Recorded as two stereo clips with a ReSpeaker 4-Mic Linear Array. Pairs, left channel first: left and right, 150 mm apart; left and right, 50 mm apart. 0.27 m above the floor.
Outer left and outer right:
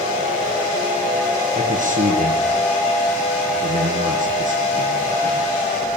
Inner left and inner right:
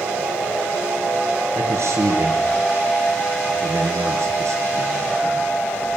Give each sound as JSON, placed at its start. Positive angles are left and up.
{"t": 1.6, "sound": "a man speaking", "side_deg": -60, "distance_m": 5.5}